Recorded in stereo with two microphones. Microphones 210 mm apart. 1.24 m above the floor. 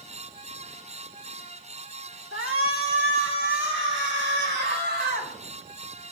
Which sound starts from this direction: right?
A shout, at 2.3 s.